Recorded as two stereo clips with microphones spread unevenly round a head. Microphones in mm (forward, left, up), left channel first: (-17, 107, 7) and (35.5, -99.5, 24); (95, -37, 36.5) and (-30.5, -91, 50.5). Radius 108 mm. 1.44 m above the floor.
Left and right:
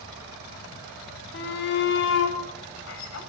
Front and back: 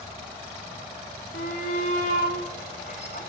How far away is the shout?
About 5.5 m.